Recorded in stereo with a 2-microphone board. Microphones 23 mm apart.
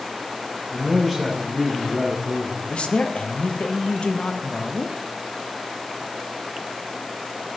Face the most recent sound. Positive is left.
turn(degrees=60)  # may be behind; listen again after turning